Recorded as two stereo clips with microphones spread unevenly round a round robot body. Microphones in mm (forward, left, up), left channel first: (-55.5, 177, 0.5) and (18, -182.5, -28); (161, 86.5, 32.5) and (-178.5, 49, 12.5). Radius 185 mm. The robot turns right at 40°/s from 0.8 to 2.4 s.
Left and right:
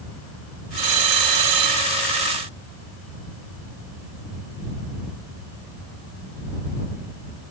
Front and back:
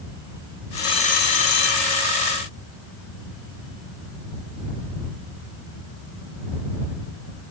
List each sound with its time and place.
0.8 s a bell: 75° right; by 2.1 s 25° right